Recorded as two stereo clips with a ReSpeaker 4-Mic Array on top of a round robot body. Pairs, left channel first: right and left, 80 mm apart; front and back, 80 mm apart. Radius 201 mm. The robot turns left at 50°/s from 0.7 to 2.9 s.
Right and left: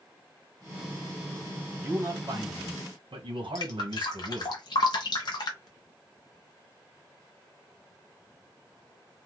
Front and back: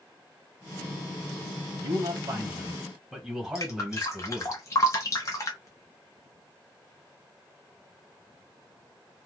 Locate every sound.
1.8 s a man speaking: 150° left, 1.5 m; by 4.5 s 100° left, 1.5 m
3.5 s dripping: 55° right, 0.5 m